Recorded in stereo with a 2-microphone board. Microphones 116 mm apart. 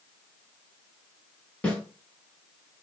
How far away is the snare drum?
About 2.5 m.